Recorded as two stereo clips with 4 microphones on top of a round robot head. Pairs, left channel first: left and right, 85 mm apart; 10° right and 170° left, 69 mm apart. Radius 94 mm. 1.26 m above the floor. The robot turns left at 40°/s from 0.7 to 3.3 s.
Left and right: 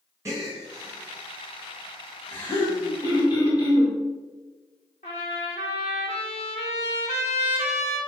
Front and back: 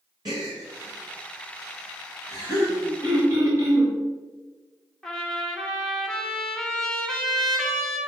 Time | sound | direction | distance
0.2 | a gasp | 145° right | 1.7 m
3.0 | throat clearing | 135° left | 1.7 m
5.0 | a trumpet | 75° left | 0.8 m